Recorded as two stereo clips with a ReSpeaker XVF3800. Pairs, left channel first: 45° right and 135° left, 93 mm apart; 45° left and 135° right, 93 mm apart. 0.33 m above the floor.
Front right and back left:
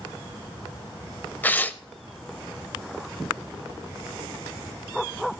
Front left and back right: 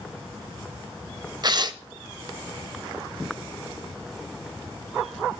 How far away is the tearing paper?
About 0.5 m.